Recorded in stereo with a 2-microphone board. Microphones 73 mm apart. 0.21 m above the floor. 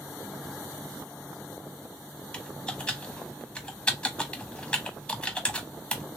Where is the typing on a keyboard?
15° left (ahead or behind), 0.7 m.